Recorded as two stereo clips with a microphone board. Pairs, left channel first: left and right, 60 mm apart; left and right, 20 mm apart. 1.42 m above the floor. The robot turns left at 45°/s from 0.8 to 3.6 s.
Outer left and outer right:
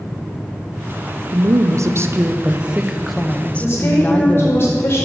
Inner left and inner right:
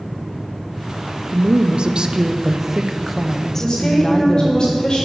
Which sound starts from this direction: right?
A woman speaking, at 1.3 s.